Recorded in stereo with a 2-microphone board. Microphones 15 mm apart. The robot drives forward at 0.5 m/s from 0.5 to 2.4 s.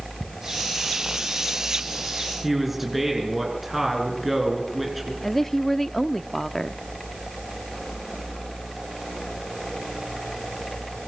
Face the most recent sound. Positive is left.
turn(degrees=15)  # may be behind; listen again after turning